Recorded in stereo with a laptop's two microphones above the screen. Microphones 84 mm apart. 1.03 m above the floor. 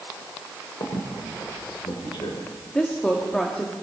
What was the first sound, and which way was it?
A squeak, 85° left.